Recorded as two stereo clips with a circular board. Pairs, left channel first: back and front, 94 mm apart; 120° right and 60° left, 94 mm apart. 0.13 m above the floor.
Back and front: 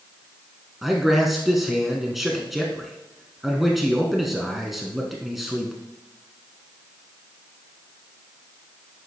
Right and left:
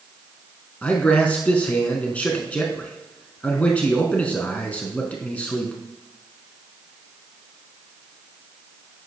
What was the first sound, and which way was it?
A man speaking, 85° right.